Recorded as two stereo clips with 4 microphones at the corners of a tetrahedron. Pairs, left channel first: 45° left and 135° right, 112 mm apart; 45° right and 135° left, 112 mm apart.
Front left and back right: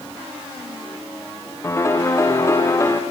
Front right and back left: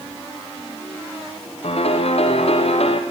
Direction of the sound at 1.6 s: 20° right.